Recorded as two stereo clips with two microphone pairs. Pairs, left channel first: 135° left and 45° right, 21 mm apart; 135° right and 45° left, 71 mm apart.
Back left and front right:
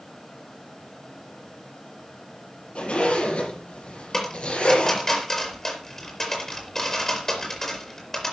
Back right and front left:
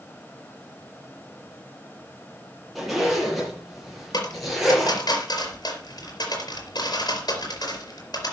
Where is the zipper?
135° left, 7 m.